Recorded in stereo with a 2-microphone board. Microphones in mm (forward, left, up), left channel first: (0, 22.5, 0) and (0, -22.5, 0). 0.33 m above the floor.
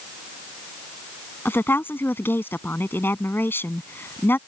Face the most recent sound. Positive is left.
turn(degrees=60)  # may be behind; listen again after turning